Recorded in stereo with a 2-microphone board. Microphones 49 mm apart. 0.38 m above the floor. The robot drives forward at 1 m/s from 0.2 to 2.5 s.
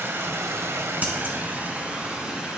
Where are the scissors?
35° right (ahead or behind), 2.5 m; by 1.4 s 40° right (ahead or behind), 2 m.